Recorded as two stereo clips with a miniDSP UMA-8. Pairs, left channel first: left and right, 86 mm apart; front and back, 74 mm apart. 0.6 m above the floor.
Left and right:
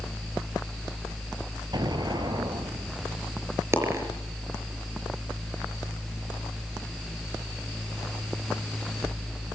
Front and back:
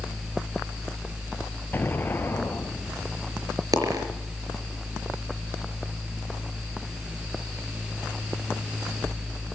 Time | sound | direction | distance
1.7 | an explosion | 60° right | 1.8 m
3.7 | a dropped coin | 145° right | 4.5 m